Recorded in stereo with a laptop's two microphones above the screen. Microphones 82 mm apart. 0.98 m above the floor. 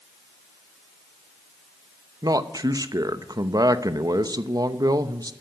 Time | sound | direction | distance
2.2 | a man speaking | 50° right (ahead or behind) | 0.8 m